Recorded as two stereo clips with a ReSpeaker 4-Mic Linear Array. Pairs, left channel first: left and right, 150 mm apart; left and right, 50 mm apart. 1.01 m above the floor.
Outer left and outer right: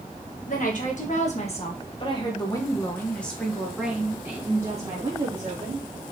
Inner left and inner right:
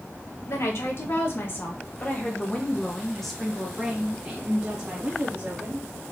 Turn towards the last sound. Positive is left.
turn(degrees=-30)  # may be behind; listen again after turning